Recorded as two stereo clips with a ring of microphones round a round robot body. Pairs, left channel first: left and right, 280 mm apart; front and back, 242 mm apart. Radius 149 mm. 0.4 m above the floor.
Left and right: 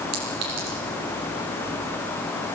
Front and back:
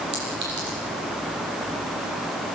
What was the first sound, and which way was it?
A clink, 125° right.